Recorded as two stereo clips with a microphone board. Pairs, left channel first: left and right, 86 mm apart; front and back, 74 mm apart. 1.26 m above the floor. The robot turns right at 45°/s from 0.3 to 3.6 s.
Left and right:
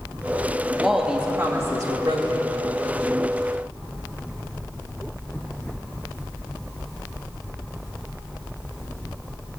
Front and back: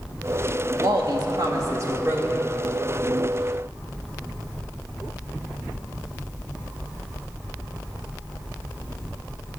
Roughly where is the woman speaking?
Behind.